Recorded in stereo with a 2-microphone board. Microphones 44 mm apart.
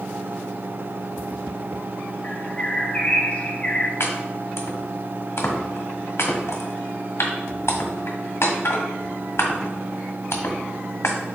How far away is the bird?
About 1.0 m.